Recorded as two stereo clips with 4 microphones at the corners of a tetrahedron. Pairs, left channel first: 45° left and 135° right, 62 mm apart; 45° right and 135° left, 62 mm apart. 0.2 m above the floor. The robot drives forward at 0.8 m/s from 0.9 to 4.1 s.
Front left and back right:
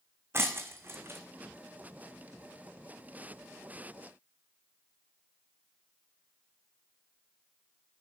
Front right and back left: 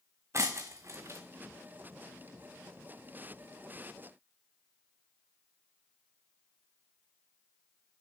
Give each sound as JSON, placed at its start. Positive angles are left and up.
{"t": 0.3, "sound": "breaking glass", "azimuth_deg": 175, "distance_m": 1.2}